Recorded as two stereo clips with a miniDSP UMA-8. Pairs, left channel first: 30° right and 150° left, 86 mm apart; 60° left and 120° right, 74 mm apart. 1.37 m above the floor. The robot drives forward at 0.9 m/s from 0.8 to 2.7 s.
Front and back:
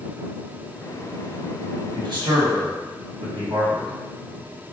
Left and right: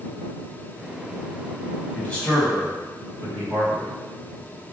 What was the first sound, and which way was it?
A man speaking, 125° left.